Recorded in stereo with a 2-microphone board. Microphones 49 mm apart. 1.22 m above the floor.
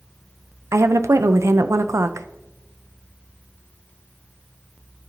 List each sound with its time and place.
0.7 s a woman speaking: 80° right, 0.5 m